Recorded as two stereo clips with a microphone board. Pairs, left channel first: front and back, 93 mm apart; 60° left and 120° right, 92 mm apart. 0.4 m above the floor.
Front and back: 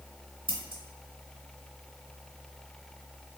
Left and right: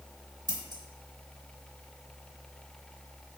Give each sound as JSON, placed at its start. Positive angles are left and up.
{"t": 0.5, "sound": "scissors", "azimuth_deg": -155, "distance_m": 1.0}